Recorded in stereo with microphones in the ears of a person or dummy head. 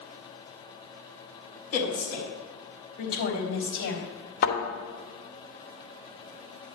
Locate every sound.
1.7 s a woman speaking: 50° left (ahead or behind), 4 m; by 4.0 s 65° left (ahead or behind), 3 m
4.4 s a thud: 50° left (ahead or behind), 2.5 m